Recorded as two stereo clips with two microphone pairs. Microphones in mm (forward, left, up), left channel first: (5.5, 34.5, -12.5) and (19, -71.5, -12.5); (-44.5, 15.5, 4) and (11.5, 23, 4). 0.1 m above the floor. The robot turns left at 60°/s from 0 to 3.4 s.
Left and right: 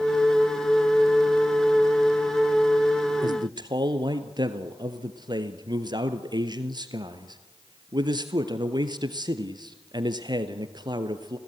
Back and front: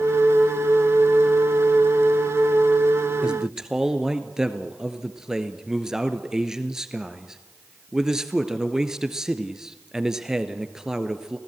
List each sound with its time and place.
3.2 s a man speaking: 55° right, 1.5 m; by 11.4 s 70° right, 1.5 m